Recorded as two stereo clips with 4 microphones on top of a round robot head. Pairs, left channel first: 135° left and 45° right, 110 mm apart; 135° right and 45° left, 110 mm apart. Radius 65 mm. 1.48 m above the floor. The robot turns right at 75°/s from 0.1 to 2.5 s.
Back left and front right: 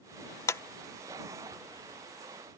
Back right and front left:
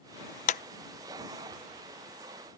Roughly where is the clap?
Behind.